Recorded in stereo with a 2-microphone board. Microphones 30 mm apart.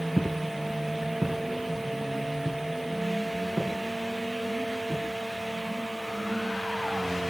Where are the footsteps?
20° right (ahead or behind), 1.0 m; by 5.1 s 50° right (ahead or behind), 5 m.